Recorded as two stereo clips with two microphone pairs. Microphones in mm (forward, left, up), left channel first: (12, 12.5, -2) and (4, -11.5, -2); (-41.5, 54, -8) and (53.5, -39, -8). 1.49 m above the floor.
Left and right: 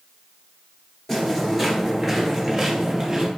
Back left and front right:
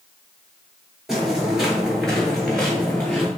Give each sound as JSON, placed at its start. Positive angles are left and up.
{"t": 1.1, "sound": "footsteps", "azimuth_deg": 35, "distance_m": 1.5}